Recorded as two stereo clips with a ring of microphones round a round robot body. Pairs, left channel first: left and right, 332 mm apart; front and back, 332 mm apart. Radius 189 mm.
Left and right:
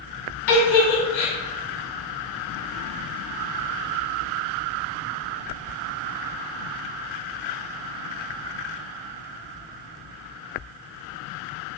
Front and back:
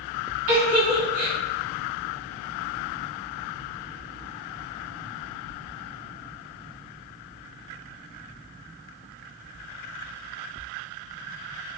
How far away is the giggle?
About 1.3 m.